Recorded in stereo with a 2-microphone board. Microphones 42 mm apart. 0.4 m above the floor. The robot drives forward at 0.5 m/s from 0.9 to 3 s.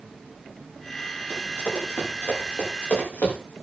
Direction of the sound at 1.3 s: 65° left (ahead or behind).